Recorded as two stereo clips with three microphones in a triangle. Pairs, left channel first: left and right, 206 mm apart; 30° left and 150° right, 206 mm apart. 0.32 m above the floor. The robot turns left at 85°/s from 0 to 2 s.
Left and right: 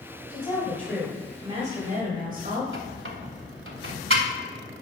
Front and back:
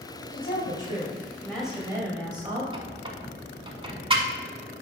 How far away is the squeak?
About 0.9 m.